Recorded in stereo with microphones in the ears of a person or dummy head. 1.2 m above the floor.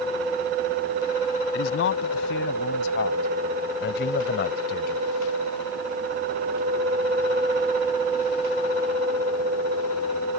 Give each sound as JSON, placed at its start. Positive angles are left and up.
{"t": 1.5, "sound": "a man speaking", "side_deg": 80}